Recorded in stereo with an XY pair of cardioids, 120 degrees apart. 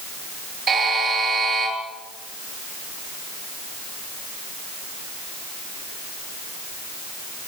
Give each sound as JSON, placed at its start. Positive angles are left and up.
{"t": 0.7, "sound": "a buzzer", "azimuth_deg": -30, "distance_m": 10.0}